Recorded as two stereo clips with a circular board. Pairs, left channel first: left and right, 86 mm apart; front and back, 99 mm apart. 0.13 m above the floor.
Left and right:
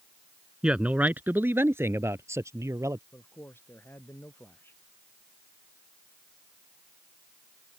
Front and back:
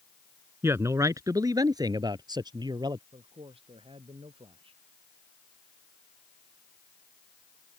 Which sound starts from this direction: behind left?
A man speaking, at 3.1 s.